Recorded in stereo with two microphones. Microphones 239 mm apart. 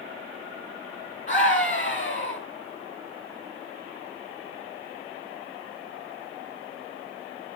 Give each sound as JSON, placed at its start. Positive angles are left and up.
{"t": 1.3, "sound": "a scream", "side_deg": 40, "distance_m": 2.0}